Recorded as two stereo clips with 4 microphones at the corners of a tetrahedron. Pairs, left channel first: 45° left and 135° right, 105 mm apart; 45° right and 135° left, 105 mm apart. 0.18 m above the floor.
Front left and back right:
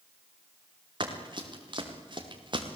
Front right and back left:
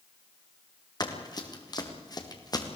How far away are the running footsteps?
About 4 m.